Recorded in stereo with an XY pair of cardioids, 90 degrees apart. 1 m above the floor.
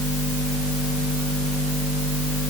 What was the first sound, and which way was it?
Only background noise.